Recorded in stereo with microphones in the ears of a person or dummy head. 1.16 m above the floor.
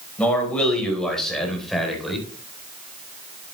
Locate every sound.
0.2 s a man speaking: 5° left (ahead or behind), 5 m; by 2.3 s centre (ahead or behind), 4 m